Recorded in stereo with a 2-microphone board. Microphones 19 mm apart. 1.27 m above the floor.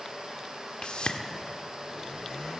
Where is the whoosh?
60° left (ahead or behind), 1.7 m.